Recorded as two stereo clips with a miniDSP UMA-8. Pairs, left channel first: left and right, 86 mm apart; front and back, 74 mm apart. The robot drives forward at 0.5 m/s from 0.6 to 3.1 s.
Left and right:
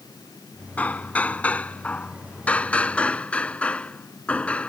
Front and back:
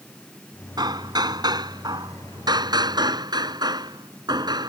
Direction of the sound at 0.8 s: 165° left.